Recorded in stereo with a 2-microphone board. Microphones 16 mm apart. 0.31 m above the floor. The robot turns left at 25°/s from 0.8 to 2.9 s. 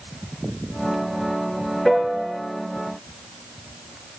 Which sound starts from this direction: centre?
A piano, at 1.9 s.